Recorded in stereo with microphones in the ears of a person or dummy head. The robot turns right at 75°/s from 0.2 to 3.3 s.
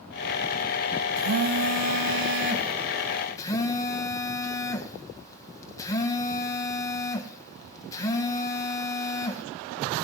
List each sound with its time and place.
1.2 s a phone buzzing: 145° right, 1.6 m; by 9.4 s 15° left, 1.6 m